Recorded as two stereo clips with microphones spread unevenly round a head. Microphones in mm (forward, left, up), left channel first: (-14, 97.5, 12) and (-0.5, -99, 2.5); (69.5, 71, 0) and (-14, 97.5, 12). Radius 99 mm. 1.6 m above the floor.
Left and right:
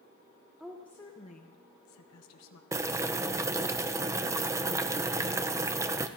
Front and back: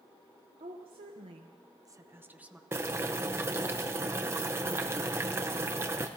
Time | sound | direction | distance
0.6 | a woman speaking | 175° right | 1.2 m
2.7 | boiling | 160° right | 0.6 m